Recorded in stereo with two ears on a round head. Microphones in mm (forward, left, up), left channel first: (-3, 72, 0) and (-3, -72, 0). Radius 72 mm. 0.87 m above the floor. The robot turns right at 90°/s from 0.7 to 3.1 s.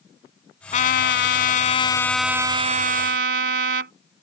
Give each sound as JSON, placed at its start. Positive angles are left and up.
{"t": 0.7, "sound": "a trumpet", "azimuth_deg": 45}